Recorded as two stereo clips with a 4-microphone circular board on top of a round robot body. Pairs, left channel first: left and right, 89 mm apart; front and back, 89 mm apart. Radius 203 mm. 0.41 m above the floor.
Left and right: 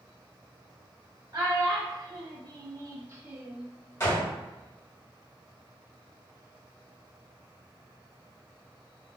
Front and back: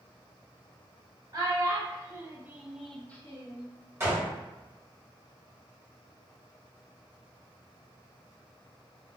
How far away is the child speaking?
About 1.3 m.